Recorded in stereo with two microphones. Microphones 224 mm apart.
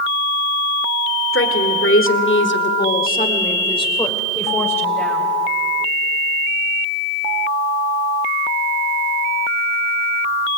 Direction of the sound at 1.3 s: 70° left (ahead or behind).